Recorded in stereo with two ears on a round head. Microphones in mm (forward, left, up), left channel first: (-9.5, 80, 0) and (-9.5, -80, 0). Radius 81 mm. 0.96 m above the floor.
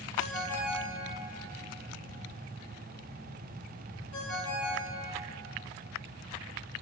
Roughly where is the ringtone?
Left.